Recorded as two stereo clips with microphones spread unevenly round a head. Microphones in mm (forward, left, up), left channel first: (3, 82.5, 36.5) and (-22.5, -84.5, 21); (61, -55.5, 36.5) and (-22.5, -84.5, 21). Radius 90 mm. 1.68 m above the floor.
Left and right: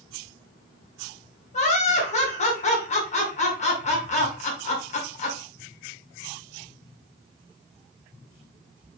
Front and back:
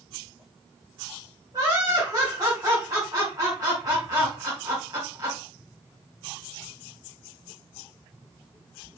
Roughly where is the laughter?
Behind left.